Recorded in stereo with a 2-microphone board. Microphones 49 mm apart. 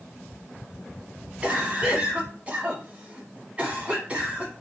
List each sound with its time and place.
1.4 s a cough: 25° right (ahead or behind), 1.1 m